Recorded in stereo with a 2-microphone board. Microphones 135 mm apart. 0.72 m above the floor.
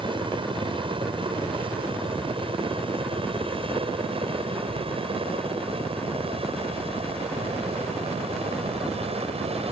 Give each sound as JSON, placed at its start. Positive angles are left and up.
{"t": 0.0, "sound": "a helicopter", "side_deg": -35}